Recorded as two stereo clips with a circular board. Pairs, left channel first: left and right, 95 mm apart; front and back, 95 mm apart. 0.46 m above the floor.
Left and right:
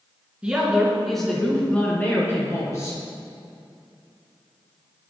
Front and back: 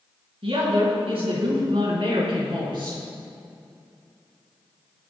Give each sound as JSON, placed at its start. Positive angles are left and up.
{"t": 0.4, "sound": "a woman speaking", "azimuth_deg": -170, "distance_m": 4.5}